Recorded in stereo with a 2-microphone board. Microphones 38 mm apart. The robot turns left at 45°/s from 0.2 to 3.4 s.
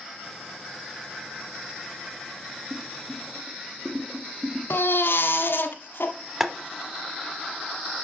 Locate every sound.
2.7 s boiling: 45° right (ahead or behind), 0.7 m; by 4.6 s 20° right (ahead or behind), 0.7 m
4.7 s a baby crying: 80° left, 1.0 m
6.4 s boiling: 15° right (ahead or behind), 0.8 m